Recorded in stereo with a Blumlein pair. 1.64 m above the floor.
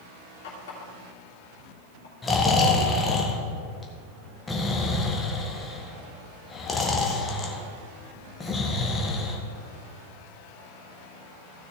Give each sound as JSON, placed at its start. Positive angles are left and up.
{"t": 0.4, "sound": "a running tap", "azimuth_deg": 55, "distance_m": 3.0}
{"t": 2.2, "sound": "snoring", "azimuth_deg": 15, "distance_m": 1.4}